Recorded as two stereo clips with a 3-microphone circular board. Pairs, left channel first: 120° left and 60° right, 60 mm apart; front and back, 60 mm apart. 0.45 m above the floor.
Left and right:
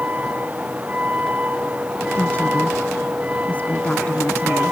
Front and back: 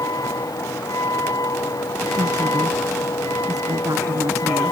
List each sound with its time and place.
0.0 s a vehicle: 5° left
2.2 s a woman speaking: 175° right